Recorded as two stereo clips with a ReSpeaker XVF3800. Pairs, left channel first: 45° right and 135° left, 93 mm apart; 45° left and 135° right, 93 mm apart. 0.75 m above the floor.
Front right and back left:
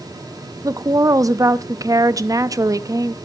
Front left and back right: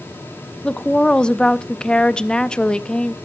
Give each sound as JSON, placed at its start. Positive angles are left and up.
{"t": 0.6, "sound": "a woman speaking", "azimuth_deg": 120, "distance_m": 0.7}